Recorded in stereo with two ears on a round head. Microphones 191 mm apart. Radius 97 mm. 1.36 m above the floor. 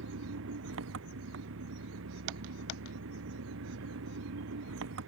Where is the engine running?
70° right (ahead or behind).